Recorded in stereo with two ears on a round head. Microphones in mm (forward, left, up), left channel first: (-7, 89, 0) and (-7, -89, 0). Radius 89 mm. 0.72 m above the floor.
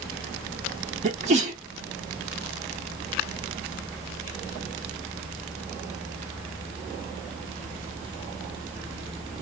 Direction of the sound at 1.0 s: 35° right (ahead or behind).